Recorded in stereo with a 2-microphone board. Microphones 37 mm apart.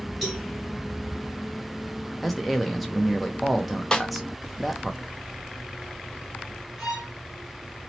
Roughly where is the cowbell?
Centre.